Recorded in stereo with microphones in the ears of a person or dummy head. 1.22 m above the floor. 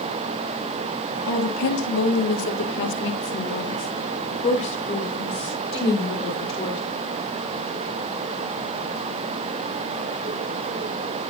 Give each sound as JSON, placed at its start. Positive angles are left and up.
{"t": 1.3, "sound": "a woman speaking", "side_deg": 85, "distance_m": 2.0}